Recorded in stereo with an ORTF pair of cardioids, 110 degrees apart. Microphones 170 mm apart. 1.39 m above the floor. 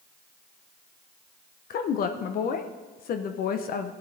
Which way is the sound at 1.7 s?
60° left.